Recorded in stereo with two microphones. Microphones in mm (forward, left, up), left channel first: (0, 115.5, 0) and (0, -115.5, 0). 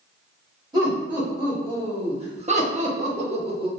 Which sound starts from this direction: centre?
Laughter, at 0.7 s.